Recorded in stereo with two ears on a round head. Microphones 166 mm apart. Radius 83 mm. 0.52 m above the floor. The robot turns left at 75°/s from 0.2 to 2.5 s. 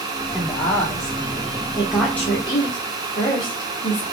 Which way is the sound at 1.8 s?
15° right (ahead or behind).